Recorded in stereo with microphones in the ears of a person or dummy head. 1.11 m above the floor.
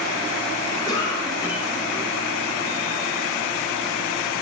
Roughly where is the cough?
Centre.